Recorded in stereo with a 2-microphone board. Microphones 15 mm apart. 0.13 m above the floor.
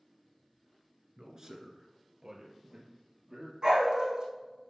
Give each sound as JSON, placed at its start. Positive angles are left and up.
{"t": 1.2, "sound": "a man speaking", "side_deg": -40, "distance_m": 1.5}
{"t": 3.6, "sound": "a dog barking", "side_deg": -50, "distance_m": 3.0}